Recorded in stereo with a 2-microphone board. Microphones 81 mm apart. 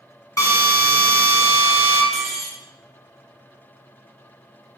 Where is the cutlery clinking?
Centre (ahead or behind), 0.9 m.